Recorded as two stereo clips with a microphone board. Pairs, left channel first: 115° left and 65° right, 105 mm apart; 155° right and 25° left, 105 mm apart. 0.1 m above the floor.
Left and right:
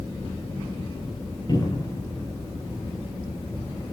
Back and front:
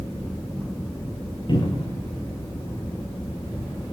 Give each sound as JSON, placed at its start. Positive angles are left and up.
{"t": 1.5, "sound": "a cupboard door", "azimuth_deg": 160, "distance_m": 7.0}